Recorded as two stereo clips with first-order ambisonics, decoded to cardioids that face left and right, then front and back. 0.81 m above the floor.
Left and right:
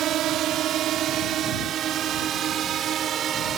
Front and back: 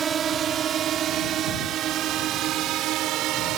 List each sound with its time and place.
0.0 s a drone: 125° right; by 3.6 s 145° right